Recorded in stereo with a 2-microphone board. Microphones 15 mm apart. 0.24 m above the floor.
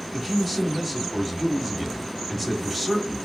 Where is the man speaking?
10° right (ahead or behind), 1.1 m.